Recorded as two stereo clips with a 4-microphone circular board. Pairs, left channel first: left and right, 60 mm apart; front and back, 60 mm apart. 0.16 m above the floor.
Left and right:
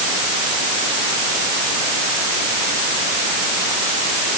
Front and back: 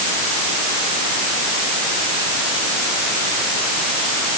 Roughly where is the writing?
I don't hear writing.